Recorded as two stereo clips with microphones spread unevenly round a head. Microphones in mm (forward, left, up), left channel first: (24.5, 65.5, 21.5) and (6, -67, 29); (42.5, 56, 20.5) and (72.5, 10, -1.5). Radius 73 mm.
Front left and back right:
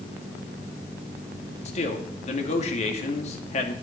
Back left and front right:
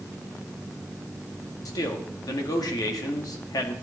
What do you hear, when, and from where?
1.6 s a man speaking: 115° left, 2 m